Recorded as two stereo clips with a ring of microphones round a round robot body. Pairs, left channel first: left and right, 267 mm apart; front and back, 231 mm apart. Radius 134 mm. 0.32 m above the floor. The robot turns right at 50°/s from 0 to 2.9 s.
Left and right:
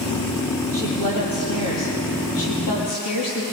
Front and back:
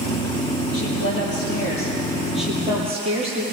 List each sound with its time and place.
0.7 s a woman speaking: 10° left, 7 m; by 3.4 s 115° left, 7 m